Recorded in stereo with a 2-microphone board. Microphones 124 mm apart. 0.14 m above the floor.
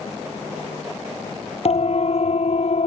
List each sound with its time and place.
1.6 s a siren: 55° left (ahead or behind); by 2.9 s 60° left (ahead or behind)